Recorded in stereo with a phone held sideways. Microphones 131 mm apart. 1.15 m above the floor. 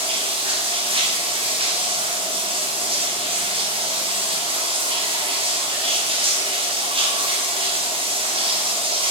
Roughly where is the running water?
Right.